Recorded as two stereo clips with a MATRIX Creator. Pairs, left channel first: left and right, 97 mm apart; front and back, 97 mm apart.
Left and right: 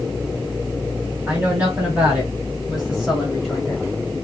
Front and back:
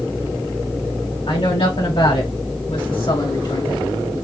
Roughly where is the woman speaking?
Ahead.